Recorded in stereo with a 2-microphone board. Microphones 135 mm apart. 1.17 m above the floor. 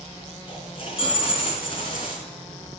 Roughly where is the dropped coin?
Left.